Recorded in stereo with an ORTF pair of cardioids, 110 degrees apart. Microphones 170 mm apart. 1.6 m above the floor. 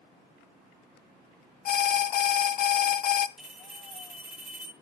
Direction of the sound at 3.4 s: 5° right.